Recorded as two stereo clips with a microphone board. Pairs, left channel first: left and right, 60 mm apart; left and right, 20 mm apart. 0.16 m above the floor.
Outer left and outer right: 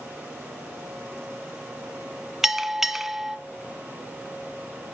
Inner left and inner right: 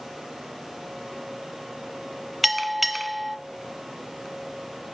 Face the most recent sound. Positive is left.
turn(degrees=-5)  # may be behind; listen again after turning